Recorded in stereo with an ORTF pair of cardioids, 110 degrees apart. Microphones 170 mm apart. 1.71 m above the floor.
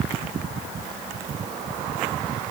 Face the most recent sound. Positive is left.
No sound to turn to.